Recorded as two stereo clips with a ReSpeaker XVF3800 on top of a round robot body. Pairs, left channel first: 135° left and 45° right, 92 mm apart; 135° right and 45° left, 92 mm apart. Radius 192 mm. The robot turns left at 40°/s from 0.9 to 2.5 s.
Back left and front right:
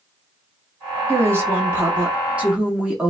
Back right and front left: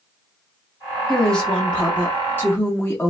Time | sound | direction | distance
1.1 | a woman speaking | 55° right | 1.3 m